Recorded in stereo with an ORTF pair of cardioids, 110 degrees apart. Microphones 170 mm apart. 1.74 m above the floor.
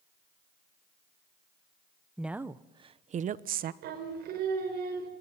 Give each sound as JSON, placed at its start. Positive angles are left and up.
{"t": 2.2, "sound": "a woman speaking", "azimuth_deg": 0, "distance_m": 1.1}
{"t": 3.8, "sound": "singing", "azimuth_deg": -70, "distance_m": 4.0}